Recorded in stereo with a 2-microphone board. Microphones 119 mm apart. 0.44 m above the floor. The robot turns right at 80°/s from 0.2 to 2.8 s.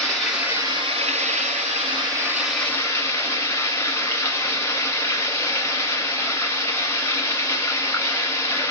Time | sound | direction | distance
0.0 | running water | 175° left | 1.4 m